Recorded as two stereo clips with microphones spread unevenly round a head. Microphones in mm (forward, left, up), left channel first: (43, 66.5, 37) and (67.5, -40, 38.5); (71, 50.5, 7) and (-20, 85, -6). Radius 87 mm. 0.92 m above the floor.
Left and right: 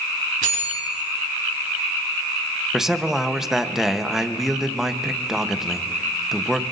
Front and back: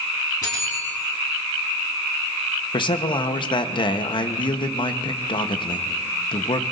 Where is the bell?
90° right, 4 m.